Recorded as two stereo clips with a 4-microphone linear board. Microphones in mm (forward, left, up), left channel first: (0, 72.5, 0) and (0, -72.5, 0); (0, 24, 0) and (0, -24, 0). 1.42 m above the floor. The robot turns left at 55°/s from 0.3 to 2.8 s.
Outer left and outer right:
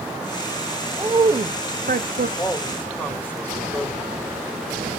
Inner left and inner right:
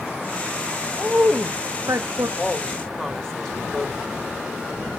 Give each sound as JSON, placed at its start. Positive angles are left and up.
{"t": 1.0, "sound": "a woman speaking", "azimuth_deg": -15, "distance_m": 0.6}
{"t": 2.4, "sound": "a woman speaking", "side_deg": 35, "distance_m": 1.7}